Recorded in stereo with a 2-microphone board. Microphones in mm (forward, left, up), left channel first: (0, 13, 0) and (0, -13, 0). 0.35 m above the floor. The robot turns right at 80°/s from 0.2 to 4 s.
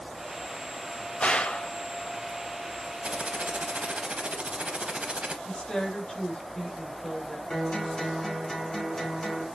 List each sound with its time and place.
1.2 s a gunshot: 65° left, 0.6 m; by 1.7 s 105° left, 0.6 m
3.0 s typing on a keyboard: 130° right, 0.7 m; by 5.3 s 55° right, 0.7 m
5.5 s a woman speaking: 40° left (ahead or behind), 1.7 m
7.5 s a guitar: 30° left (ahead or behind), 1.3 m